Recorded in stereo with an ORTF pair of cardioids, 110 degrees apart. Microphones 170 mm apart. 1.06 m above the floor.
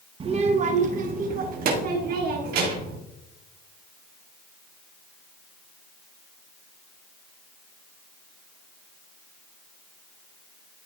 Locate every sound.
0.2 s a child speaking: 35° right, 0.8 m; by 3.0 s 70° right, 2 m